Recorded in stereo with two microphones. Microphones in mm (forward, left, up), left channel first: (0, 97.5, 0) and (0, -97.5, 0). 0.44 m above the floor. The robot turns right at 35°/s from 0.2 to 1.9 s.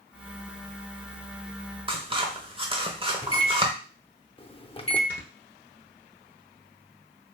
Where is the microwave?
30° left (ahead or behind), 0.6 m.